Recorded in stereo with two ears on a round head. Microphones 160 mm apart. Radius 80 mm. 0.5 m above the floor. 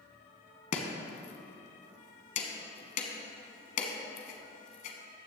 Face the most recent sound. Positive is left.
turn(degrees=45)  # may be behind; listen again after turning